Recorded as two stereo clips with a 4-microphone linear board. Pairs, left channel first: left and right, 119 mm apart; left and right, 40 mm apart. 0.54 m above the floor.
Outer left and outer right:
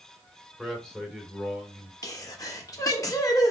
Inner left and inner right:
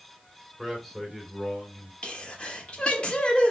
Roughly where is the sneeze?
Left.